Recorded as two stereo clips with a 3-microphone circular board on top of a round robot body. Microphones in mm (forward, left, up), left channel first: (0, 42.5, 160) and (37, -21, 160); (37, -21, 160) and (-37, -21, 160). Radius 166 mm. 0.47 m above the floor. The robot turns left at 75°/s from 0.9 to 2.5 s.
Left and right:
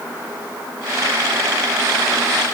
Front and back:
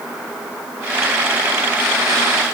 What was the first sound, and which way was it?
Only background noise.